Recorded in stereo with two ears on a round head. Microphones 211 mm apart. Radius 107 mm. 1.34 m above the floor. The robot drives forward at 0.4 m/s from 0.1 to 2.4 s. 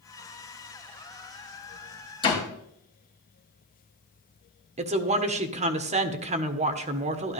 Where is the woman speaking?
30° right (ahead or behind), 1.2 m.